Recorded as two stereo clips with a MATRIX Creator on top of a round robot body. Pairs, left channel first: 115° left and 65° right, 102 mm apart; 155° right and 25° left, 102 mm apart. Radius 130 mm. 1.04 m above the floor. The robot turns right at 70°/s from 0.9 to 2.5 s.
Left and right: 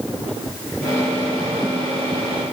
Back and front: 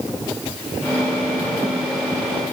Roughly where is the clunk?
No clunk in this recording.